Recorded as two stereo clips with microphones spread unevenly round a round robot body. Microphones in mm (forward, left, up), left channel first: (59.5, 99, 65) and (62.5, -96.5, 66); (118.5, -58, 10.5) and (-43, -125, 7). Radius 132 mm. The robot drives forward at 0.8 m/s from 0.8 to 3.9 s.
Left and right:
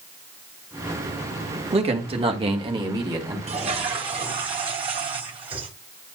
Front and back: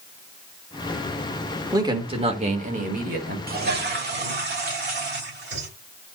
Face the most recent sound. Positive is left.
turn(degrees=-150)